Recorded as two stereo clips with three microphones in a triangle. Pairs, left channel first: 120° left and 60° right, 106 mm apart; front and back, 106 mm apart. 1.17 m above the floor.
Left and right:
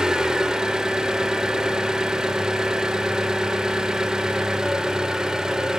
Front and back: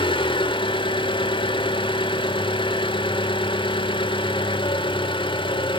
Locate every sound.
0.0 s an engine running: 25° left, 1.3 m